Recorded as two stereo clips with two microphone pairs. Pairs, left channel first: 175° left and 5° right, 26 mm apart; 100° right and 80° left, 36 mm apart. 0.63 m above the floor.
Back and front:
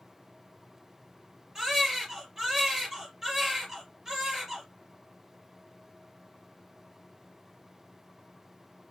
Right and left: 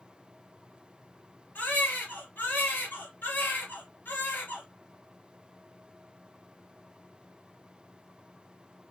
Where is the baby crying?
70° right, 3.5 m.